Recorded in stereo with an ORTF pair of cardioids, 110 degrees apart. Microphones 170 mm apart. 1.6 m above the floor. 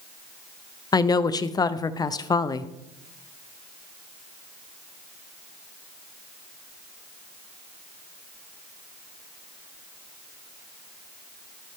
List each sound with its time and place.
0.9 s a woman speaking: 25° left, 0.8 m